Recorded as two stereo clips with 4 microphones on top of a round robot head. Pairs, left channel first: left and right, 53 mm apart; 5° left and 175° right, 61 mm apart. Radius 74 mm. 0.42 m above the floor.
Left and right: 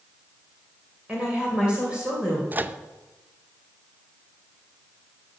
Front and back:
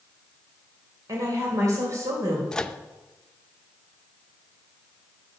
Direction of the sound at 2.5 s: 65° right.